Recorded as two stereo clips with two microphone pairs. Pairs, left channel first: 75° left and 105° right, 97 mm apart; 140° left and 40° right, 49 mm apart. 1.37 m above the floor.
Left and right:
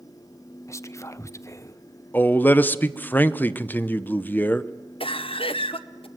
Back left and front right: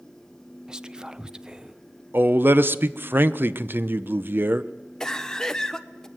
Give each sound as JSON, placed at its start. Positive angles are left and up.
{"t": 0.7, "sound": "whispering", "azimuth_deg": 35, "distance_m": 0.6}
{"t": 2.1, "sound": "a man speaking", "azimuth_deg": 5, "distance_m": 0.7}
{"t": 5.0, "sound": "a cough", "azimuth_deg": 65, "distance_m": 1.1}